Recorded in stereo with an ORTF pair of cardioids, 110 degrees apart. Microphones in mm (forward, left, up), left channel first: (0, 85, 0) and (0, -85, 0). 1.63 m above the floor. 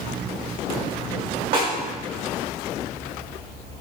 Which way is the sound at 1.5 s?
65° right.